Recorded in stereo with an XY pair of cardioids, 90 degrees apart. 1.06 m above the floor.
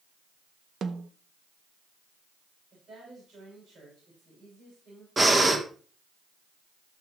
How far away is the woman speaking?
About 6.5 m.